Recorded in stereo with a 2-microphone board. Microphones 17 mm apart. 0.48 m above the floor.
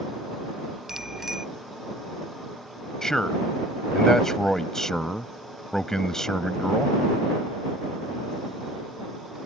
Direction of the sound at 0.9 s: 25° right (ahead or behind).